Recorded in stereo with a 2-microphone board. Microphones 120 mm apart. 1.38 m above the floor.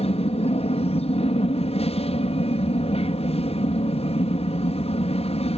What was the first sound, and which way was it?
An aircraft, 60° left (ahead or behind).